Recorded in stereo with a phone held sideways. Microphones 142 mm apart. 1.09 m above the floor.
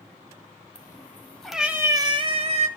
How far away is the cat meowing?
About 1.3 m.